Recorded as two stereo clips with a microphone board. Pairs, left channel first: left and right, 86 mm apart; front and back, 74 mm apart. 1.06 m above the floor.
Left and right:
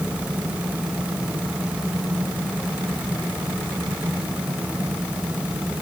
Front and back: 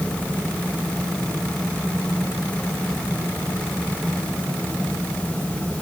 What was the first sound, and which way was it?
Only background noise.